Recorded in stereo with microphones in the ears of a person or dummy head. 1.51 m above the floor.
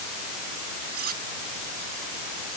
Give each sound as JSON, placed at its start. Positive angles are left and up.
{"t": 0.9, "sound": "cutlery clinking", "side_deg": -40}